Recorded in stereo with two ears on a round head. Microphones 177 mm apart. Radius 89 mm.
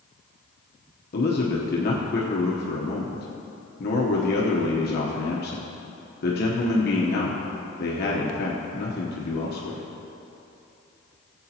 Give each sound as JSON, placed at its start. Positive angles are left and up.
{"t": 1.1, "sound": "a man speaking", "side_deg": 50, "distance_m": 1.0}